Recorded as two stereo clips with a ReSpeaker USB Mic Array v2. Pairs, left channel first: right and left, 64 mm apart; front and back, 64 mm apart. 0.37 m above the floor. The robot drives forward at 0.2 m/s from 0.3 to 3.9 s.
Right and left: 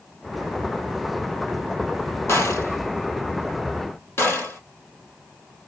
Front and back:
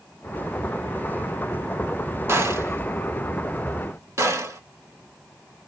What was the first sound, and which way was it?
A gunshot, 135° right.